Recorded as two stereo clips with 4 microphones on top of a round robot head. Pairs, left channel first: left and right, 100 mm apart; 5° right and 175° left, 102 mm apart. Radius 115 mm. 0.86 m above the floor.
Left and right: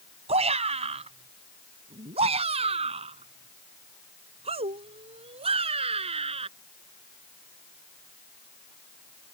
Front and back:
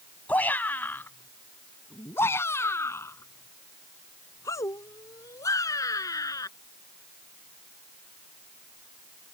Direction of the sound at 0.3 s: 85° right.